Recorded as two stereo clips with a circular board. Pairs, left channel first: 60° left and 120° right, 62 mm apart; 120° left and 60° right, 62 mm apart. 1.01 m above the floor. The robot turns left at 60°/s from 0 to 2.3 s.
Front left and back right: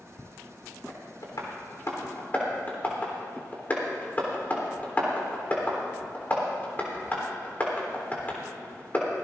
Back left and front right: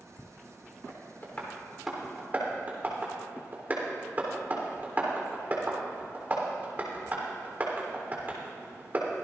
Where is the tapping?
80° left, 3.5 m; by 9.1 s 5° right, 3.5 m.